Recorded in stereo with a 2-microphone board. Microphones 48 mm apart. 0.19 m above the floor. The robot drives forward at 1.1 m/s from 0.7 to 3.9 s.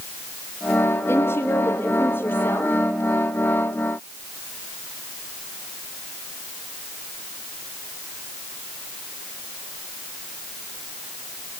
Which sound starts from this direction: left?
A woman speaking, at 1.1 s.